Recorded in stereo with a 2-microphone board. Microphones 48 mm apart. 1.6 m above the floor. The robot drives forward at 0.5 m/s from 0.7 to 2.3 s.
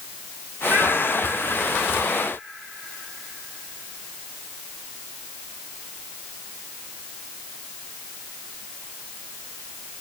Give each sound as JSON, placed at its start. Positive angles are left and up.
{"t": 0.7, "sound": "a child speaking", "side_deg": -50, "distance_m": 4.5}